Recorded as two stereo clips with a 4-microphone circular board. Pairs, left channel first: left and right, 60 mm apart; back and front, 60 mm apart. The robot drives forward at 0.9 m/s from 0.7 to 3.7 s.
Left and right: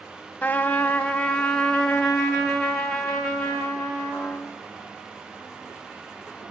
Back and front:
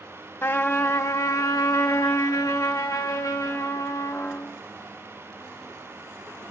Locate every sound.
0.4 s a trumpet: 140° left, 0.7 m; by 4.6 s 175° left, 3 m